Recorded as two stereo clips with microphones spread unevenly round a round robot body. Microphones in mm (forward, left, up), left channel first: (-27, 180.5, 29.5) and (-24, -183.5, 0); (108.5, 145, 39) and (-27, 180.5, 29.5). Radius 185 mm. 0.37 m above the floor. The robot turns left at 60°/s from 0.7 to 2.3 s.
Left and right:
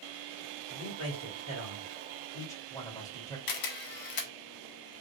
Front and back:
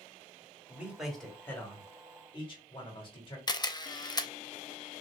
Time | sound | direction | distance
0.7 | a man speaking | 105° left | 1.7 m
3.5 | a camera shutter | 55° left | 0.7 m